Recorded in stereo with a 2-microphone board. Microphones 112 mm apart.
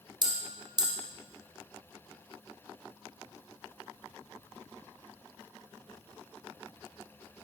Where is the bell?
45° right (ahead or behind), 1.3 m.